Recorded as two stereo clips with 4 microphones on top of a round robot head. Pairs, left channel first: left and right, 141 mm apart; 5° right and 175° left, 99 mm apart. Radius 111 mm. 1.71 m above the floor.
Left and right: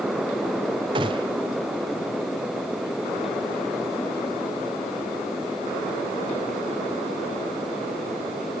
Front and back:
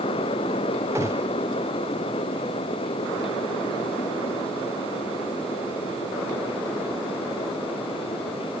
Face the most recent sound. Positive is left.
turn(degrees=-120)